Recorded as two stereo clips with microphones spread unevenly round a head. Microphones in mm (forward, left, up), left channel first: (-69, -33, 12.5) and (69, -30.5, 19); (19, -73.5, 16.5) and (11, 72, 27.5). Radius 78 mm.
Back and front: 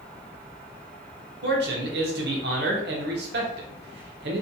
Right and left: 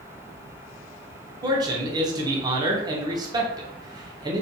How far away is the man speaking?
About 0.6 m.